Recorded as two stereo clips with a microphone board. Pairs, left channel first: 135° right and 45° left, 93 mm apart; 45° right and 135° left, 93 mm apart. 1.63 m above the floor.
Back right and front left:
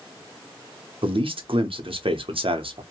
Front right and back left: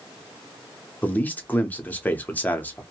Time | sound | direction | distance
1.0 | a man speaking | 30° left | 0.8 m